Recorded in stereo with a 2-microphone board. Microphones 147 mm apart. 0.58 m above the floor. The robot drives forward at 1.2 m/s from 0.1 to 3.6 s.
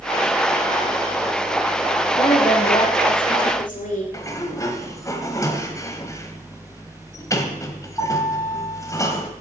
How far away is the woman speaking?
About 2 m.